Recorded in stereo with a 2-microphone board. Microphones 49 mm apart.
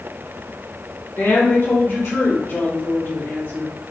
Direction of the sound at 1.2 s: 55° left (ahead or behind).